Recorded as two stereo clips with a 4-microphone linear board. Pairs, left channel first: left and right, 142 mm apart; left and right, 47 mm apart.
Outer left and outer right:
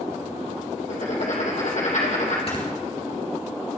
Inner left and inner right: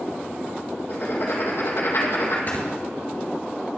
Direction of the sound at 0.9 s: 65° left (ahead or behind).